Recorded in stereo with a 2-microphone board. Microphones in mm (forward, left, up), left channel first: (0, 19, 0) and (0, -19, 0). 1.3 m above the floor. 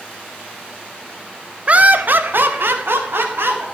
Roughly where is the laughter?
Right.